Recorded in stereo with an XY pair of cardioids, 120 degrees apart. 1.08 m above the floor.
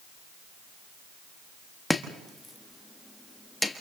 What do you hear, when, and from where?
1.9 s chopping: 5° left, 1.4 m